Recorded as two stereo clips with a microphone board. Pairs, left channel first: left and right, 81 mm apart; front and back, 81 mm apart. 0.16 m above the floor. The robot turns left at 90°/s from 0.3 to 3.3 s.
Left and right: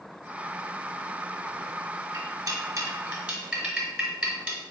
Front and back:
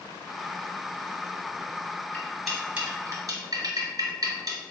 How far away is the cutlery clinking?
About 1.2 m.